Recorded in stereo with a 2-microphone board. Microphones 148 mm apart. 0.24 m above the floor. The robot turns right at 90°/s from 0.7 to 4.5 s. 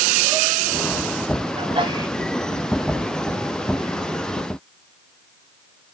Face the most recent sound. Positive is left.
turn(degrees=175)